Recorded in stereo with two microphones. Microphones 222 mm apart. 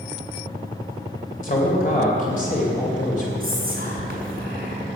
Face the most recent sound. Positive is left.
turn(degrees=-40)  # may be behind; listen again after turning